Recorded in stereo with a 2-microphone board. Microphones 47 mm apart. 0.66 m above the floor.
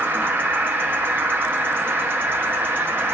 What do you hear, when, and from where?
0.0 s an insect: 50° right (ahead or behind), 1.0 m